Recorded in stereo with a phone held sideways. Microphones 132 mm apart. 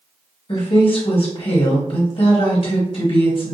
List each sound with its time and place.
0.5 s a woman speaking: 45° left (ahead or behind), 1.0 m